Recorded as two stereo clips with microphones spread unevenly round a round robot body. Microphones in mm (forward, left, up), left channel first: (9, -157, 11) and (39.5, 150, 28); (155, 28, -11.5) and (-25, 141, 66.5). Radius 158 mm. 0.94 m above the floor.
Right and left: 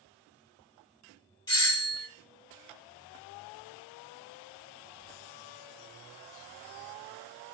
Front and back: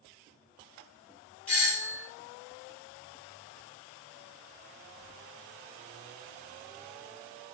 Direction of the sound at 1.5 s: 45° right.